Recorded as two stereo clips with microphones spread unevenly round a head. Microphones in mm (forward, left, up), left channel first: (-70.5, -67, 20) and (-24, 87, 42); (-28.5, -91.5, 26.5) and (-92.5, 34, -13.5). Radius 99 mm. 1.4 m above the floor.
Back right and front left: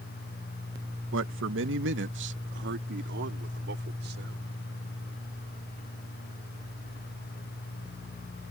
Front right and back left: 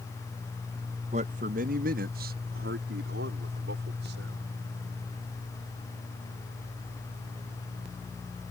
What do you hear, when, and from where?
1.1 s a man speaking: 65° left; by 4.6 s 90° left